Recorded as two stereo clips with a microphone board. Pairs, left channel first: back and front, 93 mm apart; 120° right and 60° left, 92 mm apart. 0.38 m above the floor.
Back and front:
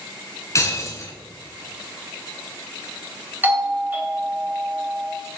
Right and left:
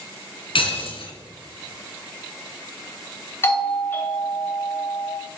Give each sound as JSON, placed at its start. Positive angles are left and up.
{"t": 0.6, "sound": "breaking glass", "azimuth_deg": -130, "distance_m": 2.5}
{"t": 3.4, "sound": "a doorbell", "azimuth_deg": -65, "distance_m": 2.5}